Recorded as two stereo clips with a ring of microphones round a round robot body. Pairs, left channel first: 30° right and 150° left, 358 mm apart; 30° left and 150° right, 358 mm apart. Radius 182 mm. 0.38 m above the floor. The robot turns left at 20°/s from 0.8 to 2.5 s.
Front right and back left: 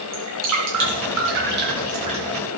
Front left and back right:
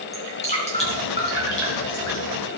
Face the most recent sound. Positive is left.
turn(degrees=70)